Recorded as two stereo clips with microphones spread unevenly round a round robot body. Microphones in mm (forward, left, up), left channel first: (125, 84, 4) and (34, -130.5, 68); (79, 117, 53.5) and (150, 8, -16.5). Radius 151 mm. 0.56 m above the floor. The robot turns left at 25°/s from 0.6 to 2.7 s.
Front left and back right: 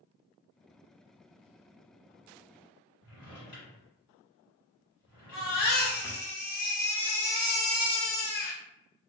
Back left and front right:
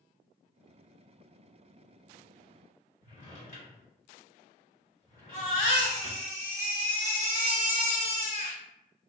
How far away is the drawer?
About 1.6 m.